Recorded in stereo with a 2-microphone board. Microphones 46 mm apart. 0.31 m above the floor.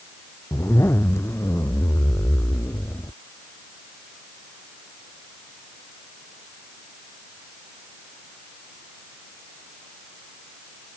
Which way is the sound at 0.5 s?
70° left (ahead or behind).